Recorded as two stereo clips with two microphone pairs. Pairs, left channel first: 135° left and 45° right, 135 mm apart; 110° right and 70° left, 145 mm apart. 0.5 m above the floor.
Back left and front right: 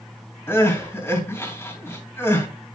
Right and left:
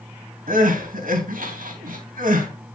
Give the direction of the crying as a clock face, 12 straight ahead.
10 o'clock.